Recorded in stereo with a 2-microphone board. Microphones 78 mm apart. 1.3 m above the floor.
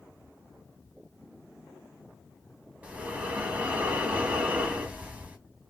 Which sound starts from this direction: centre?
Breathing, at 2.8 s.